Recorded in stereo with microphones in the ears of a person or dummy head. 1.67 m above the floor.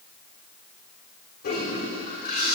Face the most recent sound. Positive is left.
turn(degrees=50)  # may be behind; listen again after turning